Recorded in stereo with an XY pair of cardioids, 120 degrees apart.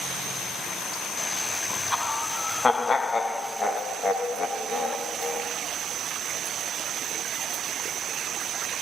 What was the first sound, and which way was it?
Laughter, 10° left.